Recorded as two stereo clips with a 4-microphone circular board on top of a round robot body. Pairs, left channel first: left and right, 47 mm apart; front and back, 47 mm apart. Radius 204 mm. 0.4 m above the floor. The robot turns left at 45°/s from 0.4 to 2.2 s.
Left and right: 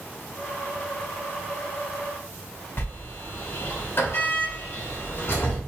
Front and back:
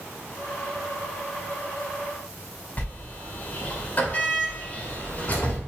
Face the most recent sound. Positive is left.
turn(degrees=55)